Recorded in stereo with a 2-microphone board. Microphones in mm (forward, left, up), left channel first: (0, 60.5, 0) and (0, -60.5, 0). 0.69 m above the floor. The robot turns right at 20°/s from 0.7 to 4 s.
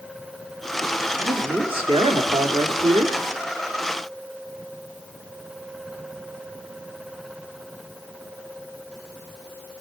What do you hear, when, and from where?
1.2 s a man speaking: 135° right, 1.7 m; by 3.2 s 95° right, 1.7 m